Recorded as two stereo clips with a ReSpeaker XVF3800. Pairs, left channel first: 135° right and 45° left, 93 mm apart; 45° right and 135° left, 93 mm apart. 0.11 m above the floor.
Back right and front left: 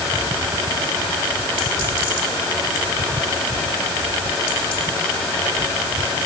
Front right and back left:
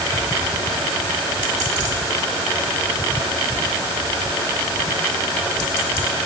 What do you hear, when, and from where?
Only background noise.